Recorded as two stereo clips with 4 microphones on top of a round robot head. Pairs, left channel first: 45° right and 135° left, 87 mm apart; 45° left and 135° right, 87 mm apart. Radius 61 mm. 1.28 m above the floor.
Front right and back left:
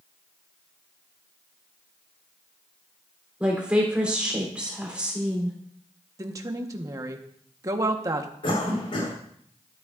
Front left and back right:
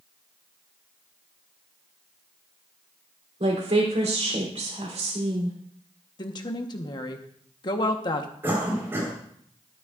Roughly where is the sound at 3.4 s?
Behind right.